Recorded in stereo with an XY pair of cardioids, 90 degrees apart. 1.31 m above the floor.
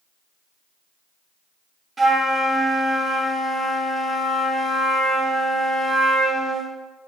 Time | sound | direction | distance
2.0 | a flute | 35° right | 0.9 m